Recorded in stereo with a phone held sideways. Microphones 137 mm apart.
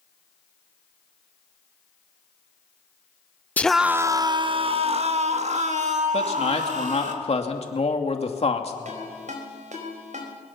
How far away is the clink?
I don't hear a clink.